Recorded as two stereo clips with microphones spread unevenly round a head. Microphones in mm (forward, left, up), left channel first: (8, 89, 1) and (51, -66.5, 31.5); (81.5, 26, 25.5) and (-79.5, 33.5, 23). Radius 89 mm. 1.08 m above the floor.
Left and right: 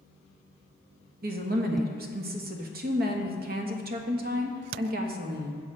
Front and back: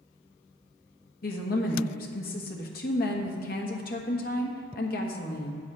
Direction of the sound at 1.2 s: 40° right.